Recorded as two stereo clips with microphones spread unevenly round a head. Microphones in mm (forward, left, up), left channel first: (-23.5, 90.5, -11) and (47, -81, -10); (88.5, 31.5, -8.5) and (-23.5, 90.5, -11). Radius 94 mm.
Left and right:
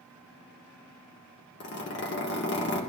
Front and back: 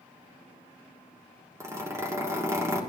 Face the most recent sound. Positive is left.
turn(degrees=85)